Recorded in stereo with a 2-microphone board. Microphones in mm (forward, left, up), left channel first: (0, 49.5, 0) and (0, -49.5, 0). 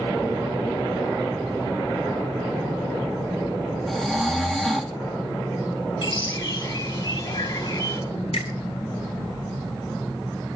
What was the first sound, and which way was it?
Snoring, centre (ahead or behind).